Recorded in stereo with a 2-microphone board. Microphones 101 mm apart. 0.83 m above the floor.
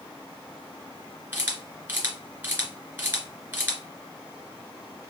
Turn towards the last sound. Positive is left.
turn(degrees=-20)  # may be behind; listen again after turning